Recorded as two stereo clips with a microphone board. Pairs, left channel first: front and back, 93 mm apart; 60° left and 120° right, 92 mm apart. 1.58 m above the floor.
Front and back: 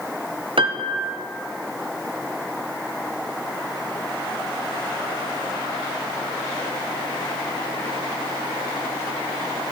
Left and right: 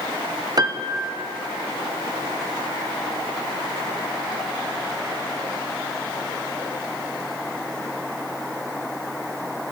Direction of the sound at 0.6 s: 160° right.